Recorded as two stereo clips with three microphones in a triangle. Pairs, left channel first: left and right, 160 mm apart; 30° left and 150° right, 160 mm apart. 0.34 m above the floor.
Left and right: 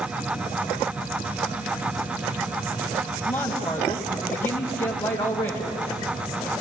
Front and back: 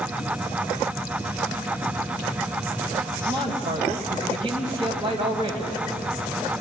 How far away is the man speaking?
About 2.5 m.